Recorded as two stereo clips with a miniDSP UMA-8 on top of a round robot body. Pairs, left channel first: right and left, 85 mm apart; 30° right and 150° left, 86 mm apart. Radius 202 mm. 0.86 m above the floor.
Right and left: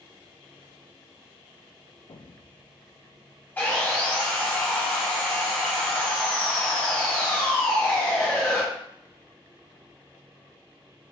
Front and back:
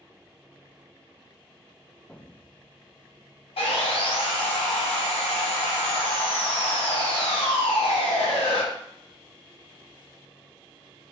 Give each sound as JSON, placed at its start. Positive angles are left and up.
{"t": 2.1, "sound": "an explosion", "azimuth_deg": -110, "distance_m": 0.5}
{"t": 3.6, "sound": "sawing", "azimuth_deg": -15, "distance_m": 0.6}